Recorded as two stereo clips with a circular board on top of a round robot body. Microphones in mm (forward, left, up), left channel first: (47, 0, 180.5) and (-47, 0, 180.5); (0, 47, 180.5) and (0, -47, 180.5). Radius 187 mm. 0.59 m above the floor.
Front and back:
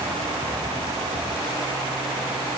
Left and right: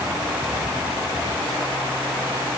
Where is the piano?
No piano in this recording.